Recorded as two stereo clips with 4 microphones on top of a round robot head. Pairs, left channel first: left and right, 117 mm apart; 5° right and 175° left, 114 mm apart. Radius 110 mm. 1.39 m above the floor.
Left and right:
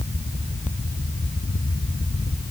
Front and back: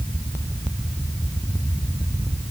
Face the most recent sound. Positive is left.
No sound to turn to.